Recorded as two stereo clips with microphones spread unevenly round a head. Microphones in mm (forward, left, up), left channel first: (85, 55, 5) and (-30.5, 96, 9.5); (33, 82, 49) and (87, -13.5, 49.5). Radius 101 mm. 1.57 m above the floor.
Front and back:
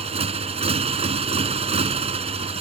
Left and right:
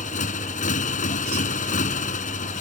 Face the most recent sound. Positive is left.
turn(degrees=125)